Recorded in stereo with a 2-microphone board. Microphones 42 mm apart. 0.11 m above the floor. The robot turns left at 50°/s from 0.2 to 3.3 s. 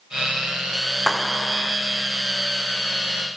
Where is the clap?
170° right; by 1.8 s 160° left.